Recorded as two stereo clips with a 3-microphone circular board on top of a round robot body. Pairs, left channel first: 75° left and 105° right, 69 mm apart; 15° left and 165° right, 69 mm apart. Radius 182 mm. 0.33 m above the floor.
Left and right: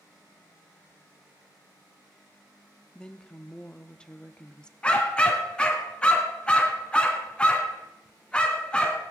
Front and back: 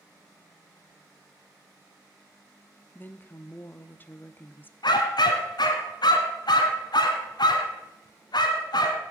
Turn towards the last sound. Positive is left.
turn(degrees=0)